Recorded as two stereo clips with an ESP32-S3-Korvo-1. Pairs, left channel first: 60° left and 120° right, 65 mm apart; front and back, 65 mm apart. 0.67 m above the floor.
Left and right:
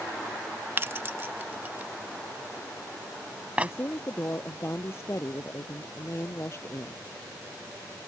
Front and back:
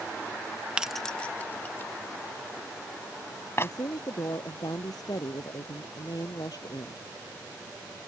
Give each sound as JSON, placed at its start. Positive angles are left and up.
{"t": 0.8, "sound": "keys jangling", "azimuth_deg": -115}
{"t": 3.6, "sound": "a woman speaking", "azimuth_deg": 10}